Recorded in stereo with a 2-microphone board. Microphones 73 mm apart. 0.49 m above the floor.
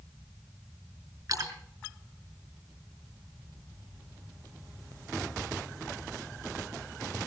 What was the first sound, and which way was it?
A splash, 50° right (ahead or behind).